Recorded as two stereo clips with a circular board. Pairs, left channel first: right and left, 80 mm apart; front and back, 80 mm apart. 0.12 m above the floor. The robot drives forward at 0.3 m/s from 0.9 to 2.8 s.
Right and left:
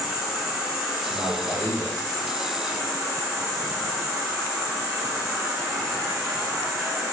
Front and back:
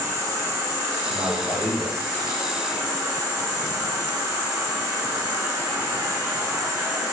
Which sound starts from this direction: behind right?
A man speaking, at 1.1 s.